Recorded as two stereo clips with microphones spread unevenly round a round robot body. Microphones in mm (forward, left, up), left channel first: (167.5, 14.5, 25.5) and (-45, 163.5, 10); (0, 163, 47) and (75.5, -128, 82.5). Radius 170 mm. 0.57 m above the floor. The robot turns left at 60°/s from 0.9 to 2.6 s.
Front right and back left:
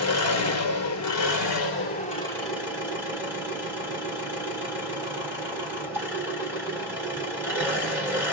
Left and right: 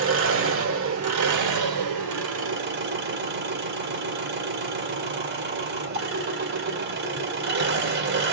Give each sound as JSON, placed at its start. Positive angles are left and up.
{"t": 0.0, "sound": "an engine running", "azimuth_deg": -30, "distance_m": 1.8}